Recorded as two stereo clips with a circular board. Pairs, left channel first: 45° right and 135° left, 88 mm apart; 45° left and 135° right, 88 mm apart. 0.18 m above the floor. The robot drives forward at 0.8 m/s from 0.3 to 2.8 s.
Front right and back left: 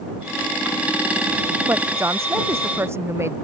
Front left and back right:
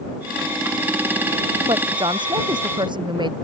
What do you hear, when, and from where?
1.7 s a woman speaking: 165° right